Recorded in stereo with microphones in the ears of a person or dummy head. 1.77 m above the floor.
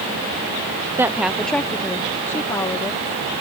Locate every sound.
1.0 s a woman speaking: 15° right (ahead or behind); by 3.0 s 20° left (ahead or behind)